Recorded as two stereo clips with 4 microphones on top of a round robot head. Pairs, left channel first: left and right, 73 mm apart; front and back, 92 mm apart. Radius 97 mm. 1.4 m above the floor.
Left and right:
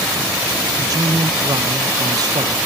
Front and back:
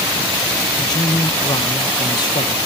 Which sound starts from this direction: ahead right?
A man speaking, at 0.8 s.